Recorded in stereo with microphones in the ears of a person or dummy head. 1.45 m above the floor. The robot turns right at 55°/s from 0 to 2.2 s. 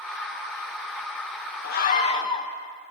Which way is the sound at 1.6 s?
125° left.